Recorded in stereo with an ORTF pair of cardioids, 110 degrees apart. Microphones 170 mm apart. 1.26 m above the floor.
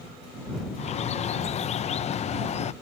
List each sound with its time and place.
0.8 s a bird: 40° left